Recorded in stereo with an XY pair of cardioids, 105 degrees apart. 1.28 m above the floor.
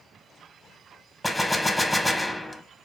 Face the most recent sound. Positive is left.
turn(degrees=10)